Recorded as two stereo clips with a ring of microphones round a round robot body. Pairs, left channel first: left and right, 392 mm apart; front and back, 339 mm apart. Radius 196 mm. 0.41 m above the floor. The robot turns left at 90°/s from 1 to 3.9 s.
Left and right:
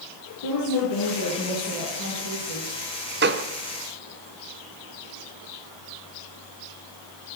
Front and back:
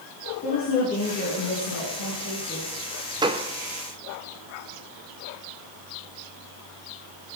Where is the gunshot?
115° right, 1.0 m; by 3.5 s 135° right, 1.0 m.